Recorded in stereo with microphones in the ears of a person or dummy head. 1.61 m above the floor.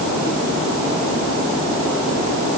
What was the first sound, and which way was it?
Only background noise.